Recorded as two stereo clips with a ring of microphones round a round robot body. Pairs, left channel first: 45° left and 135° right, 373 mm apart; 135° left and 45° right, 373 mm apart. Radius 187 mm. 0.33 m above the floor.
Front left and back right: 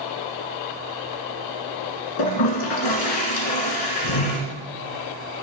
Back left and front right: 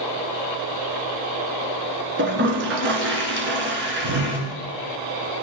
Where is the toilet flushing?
15° left, 2.5 m.